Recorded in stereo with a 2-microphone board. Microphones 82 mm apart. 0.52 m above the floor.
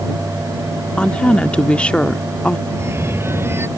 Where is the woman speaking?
10° left (ahead or behind).